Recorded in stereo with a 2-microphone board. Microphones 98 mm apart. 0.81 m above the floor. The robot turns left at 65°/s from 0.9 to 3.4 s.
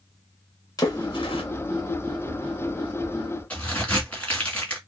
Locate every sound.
0.8 s a splash: 40° left (ahead or behind), 1.9 m; by 1.4 s 70° left (ahead or behind), 1.9 m
3.5 s a crack: 15° left (ahead or behind), 2.5 m